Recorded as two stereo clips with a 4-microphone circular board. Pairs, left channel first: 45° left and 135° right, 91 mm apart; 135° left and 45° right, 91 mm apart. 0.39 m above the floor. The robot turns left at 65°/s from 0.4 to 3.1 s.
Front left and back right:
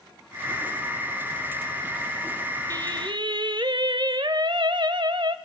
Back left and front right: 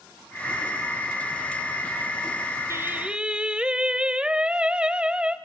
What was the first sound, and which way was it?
Singing, 95° right.